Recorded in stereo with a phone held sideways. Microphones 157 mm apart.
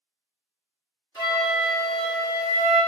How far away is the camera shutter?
No camera shutter in this recording.